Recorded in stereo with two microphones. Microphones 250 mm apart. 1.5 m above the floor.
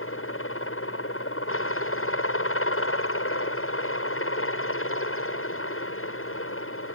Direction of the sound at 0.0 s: 55° left (ahead or behind).